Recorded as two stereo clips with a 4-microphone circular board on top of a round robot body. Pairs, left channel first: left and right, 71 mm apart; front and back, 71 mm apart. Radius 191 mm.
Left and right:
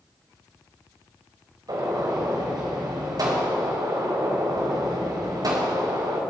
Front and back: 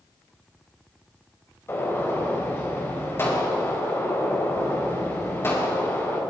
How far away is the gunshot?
About 4 m.